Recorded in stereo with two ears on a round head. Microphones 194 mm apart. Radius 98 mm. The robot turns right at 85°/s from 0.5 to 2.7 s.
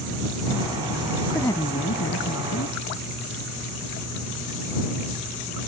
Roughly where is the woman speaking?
Ahead.